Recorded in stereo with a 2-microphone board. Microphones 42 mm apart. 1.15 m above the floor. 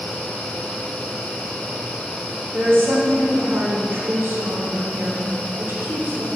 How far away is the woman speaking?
About 2.5 m.